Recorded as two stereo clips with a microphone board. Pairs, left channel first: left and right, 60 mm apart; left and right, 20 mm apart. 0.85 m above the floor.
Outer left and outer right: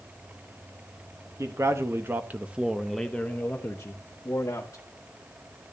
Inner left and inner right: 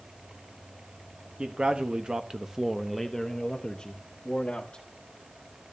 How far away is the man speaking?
About 1.2 m.